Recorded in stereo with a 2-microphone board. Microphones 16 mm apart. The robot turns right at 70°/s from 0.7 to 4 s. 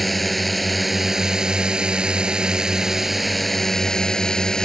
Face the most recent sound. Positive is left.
turn(degrees=50)